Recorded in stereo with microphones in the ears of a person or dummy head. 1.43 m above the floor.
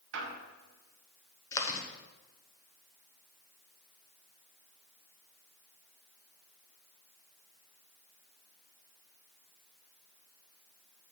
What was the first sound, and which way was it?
A squeak, 70° right (ahead or behind).